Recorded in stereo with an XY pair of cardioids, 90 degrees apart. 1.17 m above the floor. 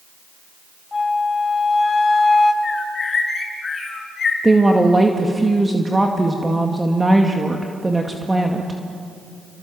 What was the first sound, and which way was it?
A flute, 30° left.